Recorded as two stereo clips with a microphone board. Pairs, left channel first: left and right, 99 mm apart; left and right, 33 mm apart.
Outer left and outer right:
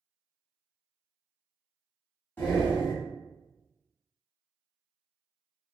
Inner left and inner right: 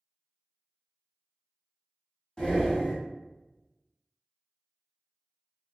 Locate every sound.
2.4 s breathing: 20° left (ahead or behind), 1.2 m